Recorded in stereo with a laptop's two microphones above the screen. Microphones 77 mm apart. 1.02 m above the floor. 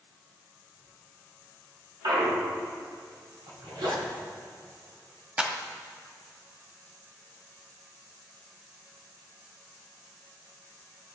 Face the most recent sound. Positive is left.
turn(degrees=-20)  # may be behind; listen again after turning